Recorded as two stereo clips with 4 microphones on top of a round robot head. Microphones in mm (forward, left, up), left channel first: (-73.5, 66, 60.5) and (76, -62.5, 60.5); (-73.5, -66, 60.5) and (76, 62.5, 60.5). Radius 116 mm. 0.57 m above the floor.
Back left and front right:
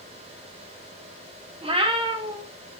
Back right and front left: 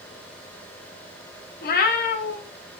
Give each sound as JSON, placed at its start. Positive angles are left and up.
{"t": 1.6, "sound": "a cat meowing", "azimuth_deg": -100, "distance_m": 0.5}